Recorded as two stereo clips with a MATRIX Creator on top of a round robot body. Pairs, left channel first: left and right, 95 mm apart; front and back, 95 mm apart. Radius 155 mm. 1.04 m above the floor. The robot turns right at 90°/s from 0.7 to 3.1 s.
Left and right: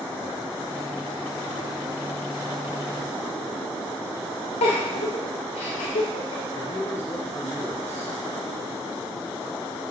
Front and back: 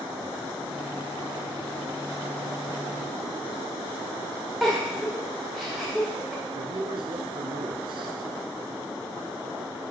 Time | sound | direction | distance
4.6 | a giggle | 90° left | 1.0 m
6.5 | a man speaking | 160° left | 1.2 m